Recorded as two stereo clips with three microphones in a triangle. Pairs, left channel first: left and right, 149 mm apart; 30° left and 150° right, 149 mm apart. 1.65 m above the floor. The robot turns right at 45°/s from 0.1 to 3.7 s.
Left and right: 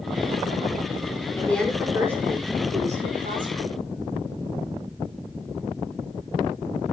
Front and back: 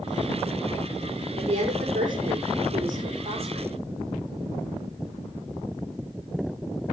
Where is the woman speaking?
165° left, 5.5 m; by 3.8 s 90° right, 5.5 m.